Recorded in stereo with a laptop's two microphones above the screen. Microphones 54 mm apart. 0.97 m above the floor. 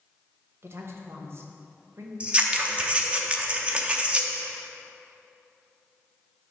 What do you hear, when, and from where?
0.6 s a woman speaking: 50° right (ahead or behind), 0.9 m
2.2 s scissors: 25° right (ahead or behind), 0.5 m